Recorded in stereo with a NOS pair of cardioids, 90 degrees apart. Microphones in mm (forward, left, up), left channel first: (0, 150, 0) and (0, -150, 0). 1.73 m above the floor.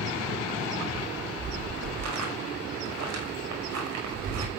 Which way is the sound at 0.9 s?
70° right.